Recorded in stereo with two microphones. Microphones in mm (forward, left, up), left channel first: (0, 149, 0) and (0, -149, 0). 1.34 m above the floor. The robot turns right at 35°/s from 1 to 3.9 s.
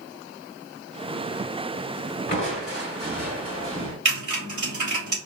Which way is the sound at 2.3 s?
45° left.